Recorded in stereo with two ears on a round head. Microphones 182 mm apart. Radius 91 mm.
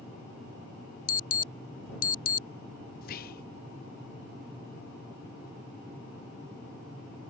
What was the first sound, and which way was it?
An alarm, 45° left (ahead or behind).